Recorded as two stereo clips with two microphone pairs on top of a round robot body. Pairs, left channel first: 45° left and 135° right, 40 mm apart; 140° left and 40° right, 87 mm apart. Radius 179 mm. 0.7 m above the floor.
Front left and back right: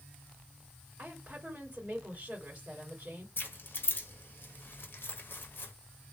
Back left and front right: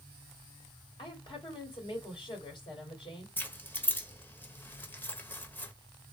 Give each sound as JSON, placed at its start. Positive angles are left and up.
{"t": 1.0, "sound": "a woman speaking", "azimuth_deg": 165, "distance_m": 2.5}
{"t": 3.4, "sound": "keys jangling", "azimuth_deg": 75, "distance_m": 1.0}